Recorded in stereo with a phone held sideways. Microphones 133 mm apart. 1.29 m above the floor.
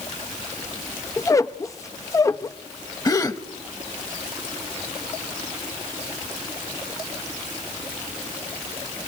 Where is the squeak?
25° left (ahead or behind), 0.5 m.